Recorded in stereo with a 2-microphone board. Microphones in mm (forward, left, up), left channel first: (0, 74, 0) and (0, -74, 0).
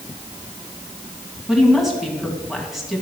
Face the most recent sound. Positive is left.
turn(degrees=0)  # may be behind; listen again after turning